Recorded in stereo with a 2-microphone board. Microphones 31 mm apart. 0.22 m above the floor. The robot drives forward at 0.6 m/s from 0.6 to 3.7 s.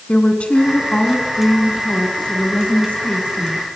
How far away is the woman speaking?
About 2.5 m.